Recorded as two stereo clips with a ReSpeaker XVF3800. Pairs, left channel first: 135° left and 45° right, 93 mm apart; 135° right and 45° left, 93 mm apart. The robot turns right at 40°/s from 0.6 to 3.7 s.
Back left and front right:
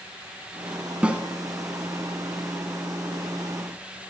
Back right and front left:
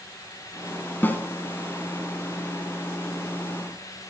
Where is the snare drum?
105° right, 1.2 m; by 1.2 s 100° right, 1.2 m.